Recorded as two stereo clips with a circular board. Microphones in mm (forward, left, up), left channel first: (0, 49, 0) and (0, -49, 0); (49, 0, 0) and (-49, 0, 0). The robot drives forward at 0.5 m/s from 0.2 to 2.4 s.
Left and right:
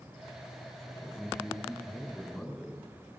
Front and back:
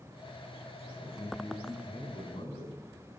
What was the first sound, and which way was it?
A man speaking, straight ahead.